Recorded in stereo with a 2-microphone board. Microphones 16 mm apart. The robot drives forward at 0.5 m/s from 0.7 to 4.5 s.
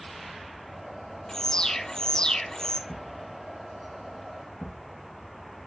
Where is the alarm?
40° left (ahead or behind), 0.6 m; by 2.8 s 35° left (ahead or behind), 0.6 m.